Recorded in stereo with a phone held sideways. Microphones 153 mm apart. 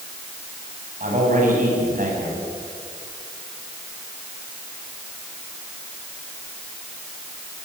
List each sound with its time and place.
1.0 s a man speaking: 60° right (ahead or behind), 7 m